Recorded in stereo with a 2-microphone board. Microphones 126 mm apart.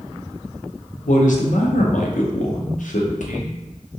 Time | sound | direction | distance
1.1 | a man speaking | 85° left | 0.7 m